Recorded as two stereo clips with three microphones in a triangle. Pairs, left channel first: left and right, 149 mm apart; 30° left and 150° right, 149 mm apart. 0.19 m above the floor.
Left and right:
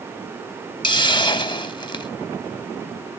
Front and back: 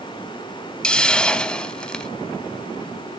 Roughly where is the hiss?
Left.